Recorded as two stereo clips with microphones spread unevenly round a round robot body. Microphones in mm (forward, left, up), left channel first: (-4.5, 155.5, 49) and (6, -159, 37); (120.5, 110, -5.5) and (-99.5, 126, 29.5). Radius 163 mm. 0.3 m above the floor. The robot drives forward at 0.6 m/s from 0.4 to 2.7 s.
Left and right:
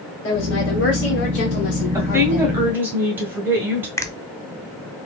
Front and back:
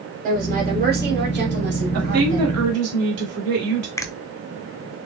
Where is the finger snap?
20° left, 0.7 m.